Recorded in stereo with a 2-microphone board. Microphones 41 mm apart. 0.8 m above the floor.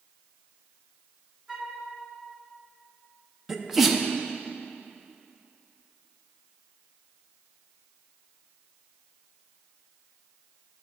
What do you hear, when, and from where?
1.5 s a flute: 30° right (ahead or behind), 1.6 m
3.5 s a sneeze: 5° right (ahead or behind), 0.7 m